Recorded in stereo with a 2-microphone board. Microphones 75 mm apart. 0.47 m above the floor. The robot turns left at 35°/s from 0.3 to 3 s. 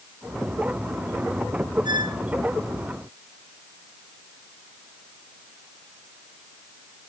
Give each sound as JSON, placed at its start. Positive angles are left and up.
{"t": 1.9, "sound": "a squeak", "side_deg": -85, "distance_m": 1.3}